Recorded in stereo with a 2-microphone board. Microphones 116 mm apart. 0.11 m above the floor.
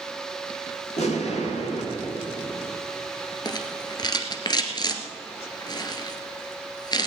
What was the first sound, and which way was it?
An explosion, 80° left.